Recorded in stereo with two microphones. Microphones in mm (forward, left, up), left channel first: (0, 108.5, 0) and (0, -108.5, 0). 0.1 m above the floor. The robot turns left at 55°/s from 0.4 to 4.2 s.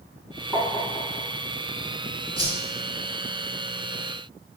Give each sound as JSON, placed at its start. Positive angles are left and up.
{"t": 0.5, "sound": "tapping", "side_deg": -5, "distance_m": 1.0}
{"t": 2.4, "sound": "a whoosh", "side_deg": 25, "distance_m": 0.8}